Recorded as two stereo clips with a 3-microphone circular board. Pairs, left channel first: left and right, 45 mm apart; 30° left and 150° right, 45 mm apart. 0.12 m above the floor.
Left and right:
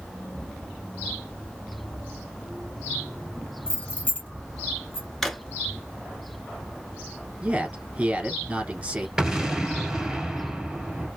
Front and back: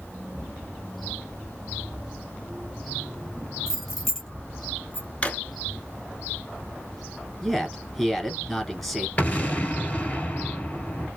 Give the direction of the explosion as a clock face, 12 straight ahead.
1 o'clock.